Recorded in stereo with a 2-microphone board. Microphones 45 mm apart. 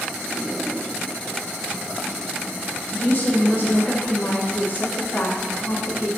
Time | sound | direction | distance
2.9 | a woman speaking | 45° left (ahead or behind) | 1.9 m